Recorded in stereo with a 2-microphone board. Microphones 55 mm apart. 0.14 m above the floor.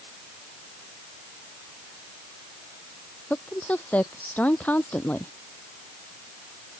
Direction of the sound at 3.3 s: 30° left (ahead or behind).